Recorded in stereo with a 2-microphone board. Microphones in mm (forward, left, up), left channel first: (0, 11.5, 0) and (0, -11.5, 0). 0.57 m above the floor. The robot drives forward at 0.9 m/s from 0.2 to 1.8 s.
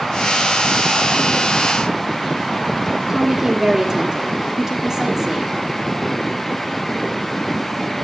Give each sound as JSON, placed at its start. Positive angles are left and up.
{"t": 3.1, "sound": "a woman speaking", "side_deg": -25, "distance_m": 1.2}